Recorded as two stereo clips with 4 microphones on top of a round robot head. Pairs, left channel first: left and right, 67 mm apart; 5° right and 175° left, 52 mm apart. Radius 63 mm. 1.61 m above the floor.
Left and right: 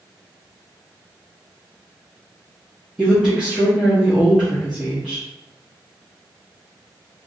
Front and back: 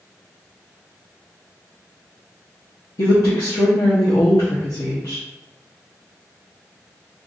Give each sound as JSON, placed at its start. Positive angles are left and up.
{"t": 3.0, "sound": "a woman speaking", "azimuth_deg": 5, "distance_m": 0.8}